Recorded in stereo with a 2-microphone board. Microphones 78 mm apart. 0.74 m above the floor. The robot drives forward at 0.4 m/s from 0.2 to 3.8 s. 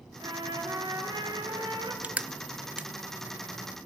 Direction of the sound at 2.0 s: 20° right (ahead or behind).